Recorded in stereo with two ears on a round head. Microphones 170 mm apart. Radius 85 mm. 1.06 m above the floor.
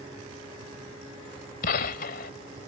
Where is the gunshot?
50° left (ahead or behind).